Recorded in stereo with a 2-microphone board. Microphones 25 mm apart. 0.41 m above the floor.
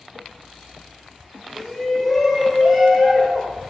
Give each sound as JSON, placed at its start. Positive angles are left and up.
{"t": 1.6, "sound": "a shout", "side_deg": 15, "distance_m": 1.3}